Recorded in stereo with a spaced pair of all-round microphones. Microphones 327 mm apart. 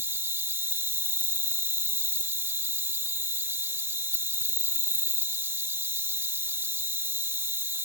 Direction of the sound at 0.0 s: 5° right (ahead or behind).